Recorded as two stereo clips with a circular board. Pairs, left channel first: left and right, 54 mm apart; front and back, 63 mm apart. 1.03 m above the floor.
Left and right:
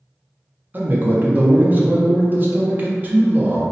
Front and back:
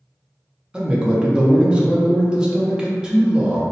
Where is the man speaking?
115° right, 0.6 m.